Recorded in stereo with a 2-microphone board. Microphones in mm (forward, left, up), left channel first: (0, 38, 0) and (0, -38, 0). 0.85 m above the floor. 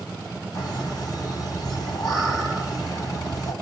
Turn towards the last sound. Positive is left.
turn(degrees=50)  # may be behind; listen again after turning